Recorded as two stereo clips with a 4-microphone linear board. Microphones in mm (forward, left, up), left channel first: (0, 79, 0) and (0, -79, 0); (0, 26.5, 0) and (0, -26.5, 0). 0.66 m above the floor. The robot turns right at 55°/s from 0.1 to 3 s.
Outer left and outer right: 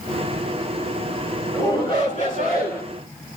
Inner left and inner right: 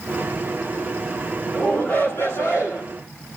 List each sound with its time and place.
1.5 s a shout: 15° left, 9.5 m; by 2.8 s 90° left, 9.5 m